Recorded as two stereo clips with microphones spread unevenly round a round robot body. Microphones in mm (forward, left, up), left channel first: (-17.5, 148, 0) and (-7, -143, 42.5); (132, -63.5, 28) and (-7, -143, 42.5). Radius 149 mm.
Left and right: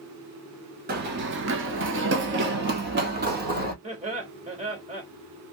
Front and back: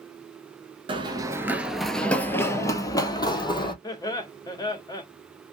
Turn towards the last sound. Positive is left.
turn(degrees=-20)